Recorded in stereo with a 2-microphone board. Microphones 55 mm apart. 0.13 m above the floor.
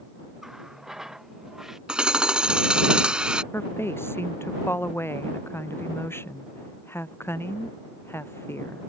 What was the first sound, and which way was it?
A running tap, 5° right (ahead or behind).